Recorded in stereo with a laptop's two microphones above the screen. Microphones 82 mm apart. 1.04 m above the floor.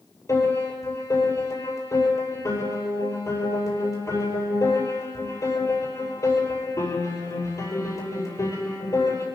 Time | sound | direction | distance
0.3 | a piano | 45° left (ahead or behind) | 7.5 m